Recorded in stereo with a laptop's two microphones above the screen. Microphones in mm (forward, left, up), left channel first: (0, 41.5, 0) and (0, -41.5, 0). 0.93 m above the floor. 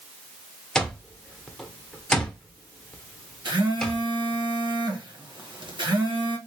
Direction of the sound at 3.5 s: 60° right (ahead or behind).